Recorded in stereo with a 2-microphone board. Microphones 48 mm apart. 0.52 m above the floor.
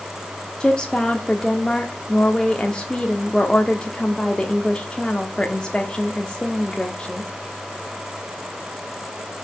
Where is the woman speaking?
20° left (ahead or behind), 1.0 m.